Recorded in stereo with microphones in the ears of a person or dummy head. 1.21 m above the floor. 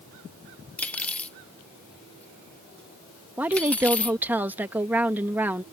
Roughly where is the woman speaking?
Centre.